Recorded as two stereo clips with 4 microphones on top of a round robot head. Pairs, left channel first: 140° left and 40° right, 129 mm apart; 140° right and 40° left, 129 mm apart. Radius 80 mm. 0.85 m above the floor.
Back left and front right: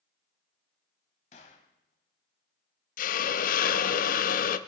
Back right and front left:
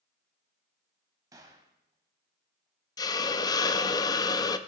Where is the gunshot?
105° left, 1.0 m.